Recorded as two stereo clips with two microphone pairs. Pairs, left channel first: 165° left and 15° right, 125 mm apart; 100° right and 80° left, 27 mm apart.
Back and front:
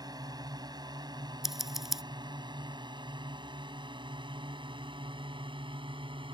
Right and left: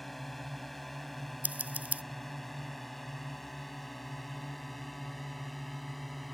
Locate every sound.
0.0 s a drone: 20° right; by 6.3 s 15° right
1.4 s scissors: 70° left